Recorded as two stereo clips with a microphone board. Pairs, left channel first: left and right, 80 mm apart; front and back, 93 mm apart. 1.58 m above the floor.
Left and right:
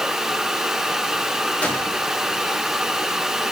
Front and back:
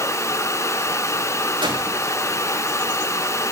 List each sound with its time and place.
1.6 s a gunshot: 160° left, 6 m